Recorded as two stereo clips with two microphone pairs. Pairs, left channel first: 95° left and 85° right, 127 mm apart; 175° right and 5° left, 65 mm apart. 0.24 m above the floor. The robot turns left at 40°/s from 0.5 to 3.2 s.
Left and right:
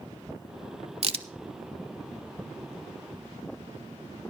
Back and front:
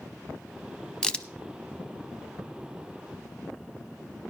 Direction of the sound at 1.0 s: 100° right.